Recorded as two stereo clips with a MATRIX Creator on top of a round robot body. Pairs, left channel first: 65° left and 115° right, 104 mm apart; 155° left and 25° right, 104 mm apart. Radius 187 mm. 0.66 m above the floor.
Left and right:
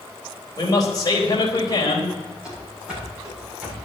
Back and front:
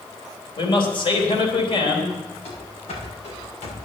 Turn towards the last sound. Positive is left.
turn(degrees=170)